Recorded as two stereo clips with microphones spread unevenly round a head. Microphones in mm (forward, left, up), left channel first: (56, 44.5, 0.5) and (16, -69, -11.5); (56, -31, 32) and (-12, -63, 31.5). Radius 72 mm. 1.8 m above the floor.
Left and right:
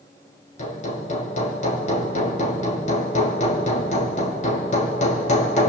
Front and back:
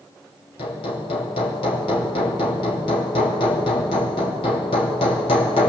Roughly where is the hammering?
Ahead left.